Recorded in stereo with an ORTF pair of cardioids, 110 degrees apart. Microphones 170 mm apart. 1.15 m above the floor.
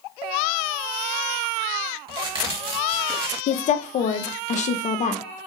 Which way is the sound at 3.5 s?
45° left.